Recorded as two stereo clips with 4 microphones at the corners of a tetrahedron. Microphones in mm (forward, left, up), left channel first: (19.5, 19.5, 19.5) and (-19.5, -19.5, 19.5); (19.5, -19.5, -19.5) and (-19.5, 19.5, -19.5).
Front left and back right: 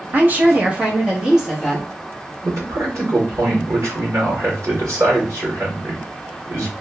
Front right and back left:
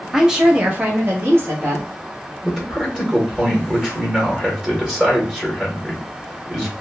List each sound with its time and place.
0.1 s a woman speaking: 140° right, 0.8 m; by 1.9 s 135° left, 1.1 m
2.4 s a man speaking: 155° right, 1.4 m